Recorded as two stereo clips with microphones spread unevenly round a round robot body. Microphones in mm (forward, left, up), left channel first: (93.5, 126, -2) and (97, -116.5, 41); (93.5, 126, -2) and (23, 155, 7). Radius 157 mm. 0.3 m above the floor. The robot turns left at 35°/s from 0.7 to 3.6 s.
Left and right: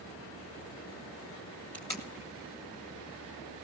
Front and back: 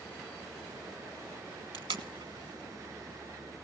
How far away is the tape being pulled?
About 1.4 m.